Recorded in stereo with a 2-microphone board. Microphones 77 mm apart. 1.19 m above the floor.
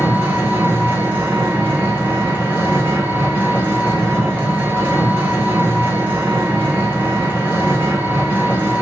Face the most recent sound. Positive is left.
turn(degrees=-25)  # may be behind; listen again after turning